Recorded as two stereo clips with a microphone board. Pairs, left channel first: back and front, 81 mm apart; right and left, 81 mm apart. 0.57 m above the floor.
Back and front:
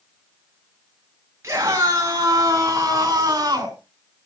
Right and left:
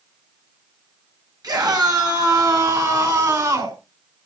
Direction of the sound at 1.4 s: 55° left.